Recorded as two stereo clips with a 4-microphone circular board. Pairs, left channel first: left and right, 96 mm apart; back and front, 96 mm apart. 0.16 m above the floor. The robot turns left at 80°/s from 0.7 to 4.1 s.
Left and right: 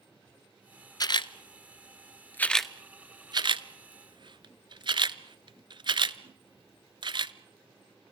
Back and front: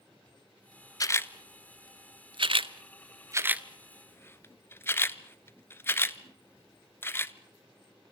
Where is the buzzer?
No buzzer in this recording.